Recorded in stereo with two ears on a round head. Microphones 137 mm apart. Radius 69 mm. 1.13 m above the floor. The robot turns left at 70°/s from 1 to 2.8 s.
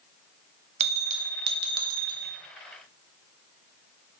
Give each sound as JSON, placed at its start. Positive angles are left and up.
{"t": 0.8, "sound": "a bell", "azimuth_deg": -45, "distance_m": 1.3}